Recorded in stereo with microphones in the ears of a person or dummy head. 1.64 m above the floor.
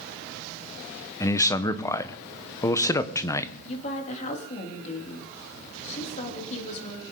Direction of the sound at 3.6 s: 40° left (ahead or behind).